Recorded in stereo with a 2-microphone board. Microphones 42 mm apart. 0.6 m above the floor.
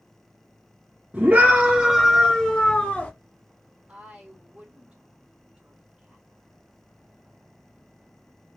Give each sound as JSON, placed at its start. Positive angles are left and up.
{"t": 1.1, "sound": "a scream", "side_deg": -35, "distance_m": 0.9}
{"t": 3.9, "sound": "a woman speaking", "side_deg": -25, "distance_m": 2.0}